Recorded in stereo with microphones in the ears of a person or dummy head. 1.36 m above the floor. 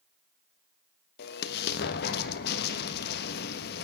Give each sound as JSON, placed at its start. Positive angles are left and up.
{"t": 1.2, "sound": "an explosion", "side_deg": 60, "distance_m": 1.3}